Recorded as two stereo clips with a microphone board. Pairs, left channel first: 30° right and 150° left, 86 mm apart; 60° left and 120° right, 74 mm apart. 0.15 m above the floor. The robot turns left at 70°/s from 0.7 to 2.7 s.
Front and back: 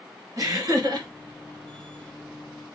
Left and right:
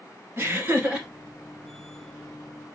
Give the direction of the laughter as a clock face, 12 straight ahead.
6 o'clock.